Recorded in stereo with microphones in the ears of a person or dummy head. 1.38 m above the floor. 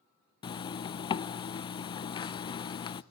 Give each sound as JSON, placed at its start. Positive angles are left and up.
{"t": 0.4, "sound": "a zipper", "side_deg": 20, "distance_m": 0.5}